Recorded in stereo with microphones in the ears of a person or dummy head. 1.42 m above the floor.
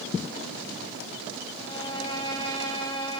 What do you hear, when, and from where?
1.6 s a violin: 20° left (ahead or behind), 5 m